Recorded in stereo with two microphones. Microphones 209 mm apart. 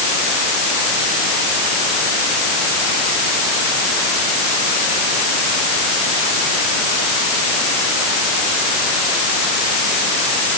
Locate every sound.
Only background noise.